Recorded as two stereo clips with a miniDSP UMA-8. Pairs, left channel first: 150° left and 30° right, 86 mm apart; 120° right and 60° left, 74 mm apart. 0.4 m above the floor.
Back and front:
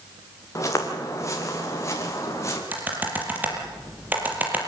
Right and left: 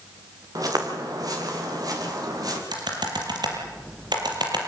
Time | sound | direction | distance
0.6 | footsteps | 95° left | 5 m
2.7 | typing on a keyboard | 40° left | 6 m